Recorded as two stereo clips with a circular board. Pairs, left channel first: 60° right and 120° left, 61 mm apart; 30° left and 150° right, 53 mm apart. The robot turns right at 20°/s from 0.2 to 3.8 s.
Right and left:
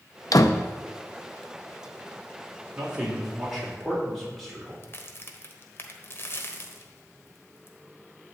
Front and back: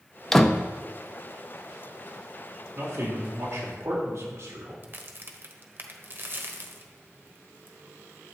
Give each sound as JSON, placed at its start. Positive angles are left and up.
{"t": 0.3, "sound": "a door slam", "azimuth_deg": -55, "distance_m": 0.7}
{"t": 2.8, "sound": "a man speaking", "azimuth_deg": -170, "distance_m": 3.5}
{"t": 4.8, "sound": "a crack", "azimuth_deg": -105, "distance_m": 1.3}